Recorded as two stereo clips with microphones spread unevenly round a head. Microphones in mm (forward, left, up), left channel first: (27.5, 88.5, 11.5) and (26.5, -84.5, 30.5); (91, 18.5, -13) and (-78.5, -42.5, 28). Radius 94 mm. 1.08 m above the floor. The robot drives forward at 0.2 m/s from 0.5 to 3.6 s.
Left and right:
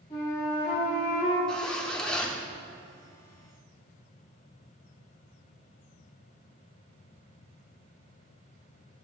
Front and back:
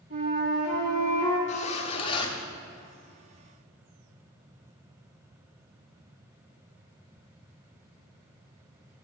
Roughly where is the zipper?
Ahead.